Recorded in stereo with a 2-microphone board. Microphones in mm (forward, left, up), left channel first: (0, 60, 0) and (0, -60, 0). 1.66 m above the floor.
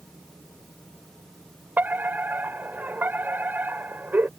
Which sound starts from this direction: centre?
A fire alarm, at 1.8 s.